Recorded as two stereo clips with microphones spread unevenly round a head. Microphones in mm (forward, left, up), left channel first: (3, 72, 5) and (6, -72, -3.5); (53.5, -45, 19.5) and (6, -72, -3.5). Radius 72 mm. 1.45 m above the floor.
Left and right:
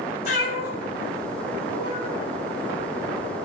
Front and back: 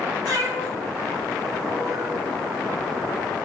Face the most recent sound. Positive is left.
turn(degrees=145)